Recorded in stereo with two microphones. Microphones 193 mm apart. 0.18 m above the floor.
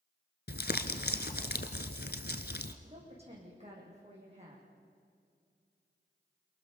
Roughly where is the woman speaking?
Right.